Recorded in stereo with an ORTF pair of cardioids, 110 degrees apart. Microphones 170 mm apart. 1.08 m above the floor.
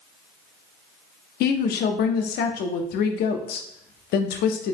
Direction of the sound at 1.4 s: 70° left.